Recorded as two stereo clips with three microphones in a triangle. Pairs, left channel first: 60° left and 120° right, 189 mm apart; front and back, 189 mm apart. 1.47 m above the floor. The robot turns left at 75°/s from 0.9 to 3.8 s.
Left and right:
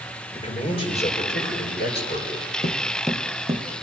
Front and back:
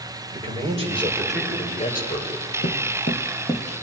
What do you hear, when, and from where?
0.3 s a man speaking: 120° left, 7 m; by 2.3 s 15° left, 7 m
2.6 s footsteps: 10° left, 3 m; by 3.8 s 95° right, 2.5 m